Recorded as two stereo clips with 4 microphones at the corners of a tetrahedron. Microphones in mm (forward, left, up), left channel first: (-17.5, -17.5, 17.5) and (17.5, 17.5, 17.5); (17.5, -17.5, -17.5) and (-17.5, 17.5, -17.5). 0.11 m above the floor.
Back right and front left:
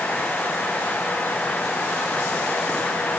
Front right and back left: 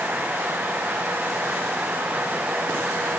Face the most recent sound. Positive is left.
No sound to turn to.